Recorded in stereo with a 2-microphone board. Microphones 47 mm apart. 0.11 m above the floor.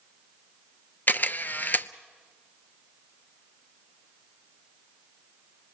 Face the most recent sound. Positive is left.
turn(degrees=40)  # may be behind; listen again after turning